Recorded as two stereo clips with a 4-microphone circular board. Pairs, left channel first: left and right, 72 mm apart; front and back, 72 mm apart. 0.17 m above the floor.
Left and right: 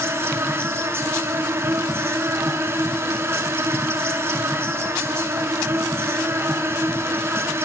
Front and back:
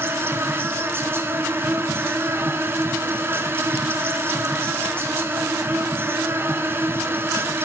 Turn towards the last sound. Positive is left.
turn(degrees=-135)